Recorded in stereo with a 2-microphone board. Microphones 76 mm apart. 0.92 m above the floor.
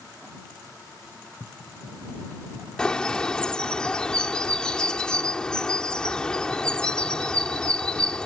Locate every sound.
2.8 s a bird: 10° left (ahead or behind)